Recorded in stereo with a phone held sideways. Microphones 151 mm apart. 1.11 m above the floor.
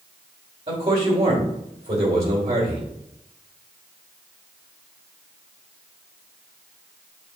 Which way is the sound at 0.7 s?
40° right (ahead or behind).